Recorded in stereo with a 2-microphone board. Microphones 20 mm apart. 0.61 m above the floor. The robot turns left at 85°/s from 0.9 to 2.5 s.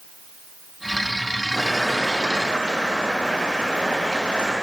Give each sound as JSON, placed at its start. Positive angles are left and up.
{"t": 1.5, "sound": "boiling", "azimuth_deg": 20, "distance_m": 6.0}